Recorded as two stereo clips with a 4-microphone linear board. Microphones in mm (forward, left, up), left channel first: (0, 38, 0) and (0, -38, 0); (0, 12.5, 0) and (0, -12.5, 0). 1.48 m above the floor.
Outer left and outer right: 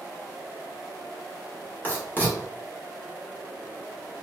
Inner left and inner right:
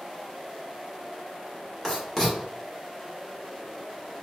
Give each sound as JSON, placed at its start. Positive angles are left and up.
{"t": 1.8, "sound": "writing", "side_deg": 25, "distance_m": 1.5}